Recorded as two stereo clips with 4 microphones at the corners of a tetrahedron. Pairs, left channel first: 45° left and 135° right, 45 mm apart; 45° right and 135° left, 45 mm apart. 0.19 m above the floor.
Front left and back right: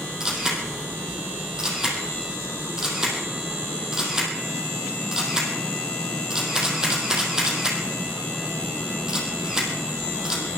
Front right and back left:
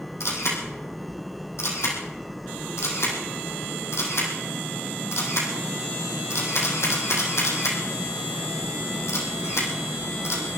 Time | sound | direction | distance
0.2 | a camera shutter | 55° right | 4 m